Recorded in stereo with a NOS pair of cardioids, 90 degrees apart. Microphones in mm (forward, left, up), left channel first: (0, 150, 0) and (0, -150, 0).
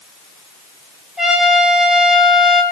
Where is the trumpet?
Straight ahead, 7 m.